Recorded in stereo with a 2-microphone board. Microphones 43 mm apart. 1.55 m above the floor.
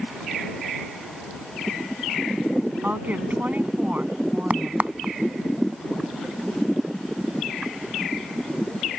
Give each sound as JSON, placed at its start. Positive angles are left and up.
{"t": 2.8, "sound": "a woman speaking", "side_deg": -45}
{"t": 4.5, "sound": "a crack", "side_deg": -35}